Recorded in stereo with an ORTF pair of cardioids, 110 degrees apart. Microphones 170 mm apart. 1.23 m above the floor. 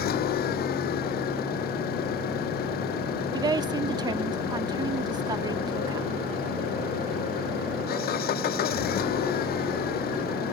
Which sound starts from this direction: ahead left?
An engine running, at 0.0 s.